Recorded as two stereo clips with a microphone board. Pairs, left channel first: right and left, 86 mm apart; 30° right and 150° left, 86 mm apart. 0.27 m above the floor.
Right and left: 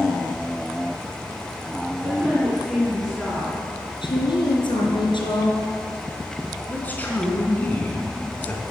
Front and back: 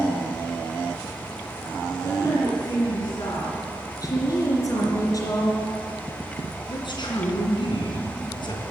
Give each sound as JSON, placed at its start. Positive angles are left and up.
{"t": 2.0, "sound": "a woman speaking", "azimuth_deg": 10, "distance_m": 3.0}
{"t": 4.0, "sound": "a woman speaking", "azimuth_deg": -75, "distance_m": 3.5}
{"t": 6.7, "sound": "a man speaking", "azimuth_deg": -20, "distance_m": 3.5}